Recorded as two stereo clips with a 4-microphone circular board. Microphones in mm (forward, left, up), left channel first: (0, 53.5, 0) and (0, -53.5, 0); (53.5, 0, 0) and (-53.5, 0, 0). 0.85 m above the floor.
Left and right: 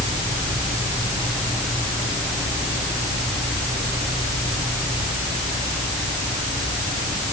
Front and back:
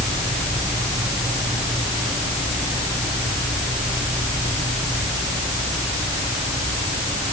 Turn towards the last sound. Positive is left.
No sound to turn to.